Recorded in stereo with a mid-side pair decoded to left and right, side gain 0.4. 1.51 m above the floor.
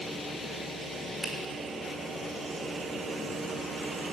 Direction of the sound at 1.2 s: 40° right.